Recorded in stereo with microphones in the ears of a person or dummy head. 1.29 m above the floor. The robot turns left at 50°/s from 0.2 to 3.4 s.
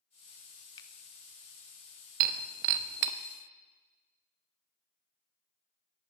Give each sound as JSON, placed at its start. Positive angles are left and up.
{"t": 0.8, "sound": "a finger snap", "side_deg": 30, "distance_m": 1.0}
{"t": 2.2, "sound": "breaking glass", "side_deg": -40, "distance_m": 0.8}